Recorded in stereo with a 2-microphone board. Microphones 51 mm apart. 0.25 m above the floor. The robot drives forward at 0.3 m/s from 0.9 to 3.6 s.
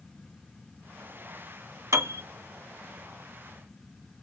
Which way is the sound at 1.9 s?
65° right (ahead or behind).